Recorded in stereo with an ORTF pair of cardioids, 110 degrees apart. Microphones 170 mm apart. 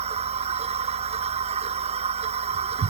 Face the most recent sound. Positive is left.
turn(degrees=-40)